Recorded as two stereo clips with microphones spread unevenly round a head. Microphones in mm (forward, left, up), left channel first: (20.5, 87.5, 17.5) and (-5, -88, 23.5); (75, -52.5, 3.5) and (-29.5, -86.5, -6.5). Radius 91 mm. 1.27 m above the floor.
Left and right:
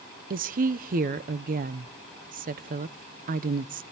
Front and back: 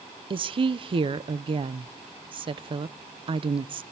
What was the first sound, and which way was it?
A woman speaking, 135° right.